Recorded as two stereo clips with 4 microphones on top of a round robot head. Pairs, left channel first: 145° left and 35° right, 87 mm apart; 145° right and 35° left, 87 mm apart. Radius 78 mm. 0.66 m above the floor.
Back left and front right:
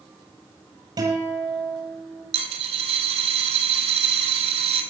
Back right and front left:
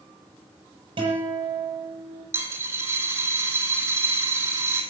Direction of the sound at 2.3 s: 25° right.